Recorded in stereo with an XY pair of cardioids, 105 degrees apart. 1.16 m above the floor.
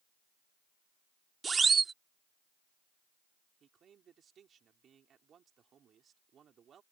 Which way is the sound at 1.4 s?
35° right.